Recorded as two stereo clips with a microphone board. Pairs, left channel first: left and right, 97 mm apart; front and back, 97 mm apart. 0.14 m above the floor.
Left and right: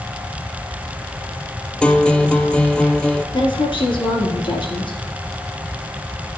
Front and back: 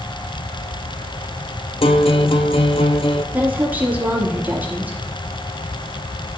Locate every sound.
1.8 s a guitar: 10° left, 0.6 m
3.3 s a woman speaking: 110° left, 3 m